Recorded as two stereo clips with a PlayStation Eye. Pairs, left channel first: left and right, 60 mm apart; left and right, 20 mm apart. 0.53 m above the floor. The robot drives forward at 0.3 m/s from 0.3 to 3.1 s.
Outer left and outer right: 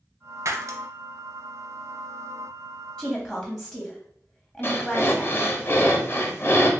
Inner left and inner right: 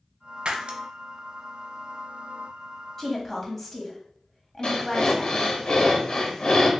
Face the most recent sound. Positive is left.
turn(degrees=40)  # may be behind; listen again after turning